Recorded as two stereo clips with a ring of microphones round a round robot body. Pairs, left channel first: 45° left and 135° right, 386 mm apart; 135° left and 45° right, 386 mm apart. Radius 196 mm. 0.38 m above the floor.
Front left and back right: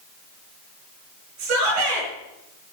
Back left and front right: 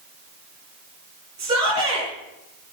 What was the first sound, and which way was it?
A shout, 125° right.